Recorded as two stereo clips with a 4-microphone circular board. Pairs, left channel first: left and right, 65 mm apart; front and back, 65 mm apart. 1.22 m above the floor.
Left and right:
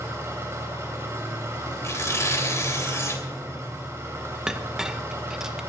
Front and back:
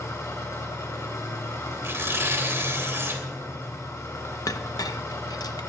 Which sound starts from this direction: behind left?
Tearing paper, at 1.8 s.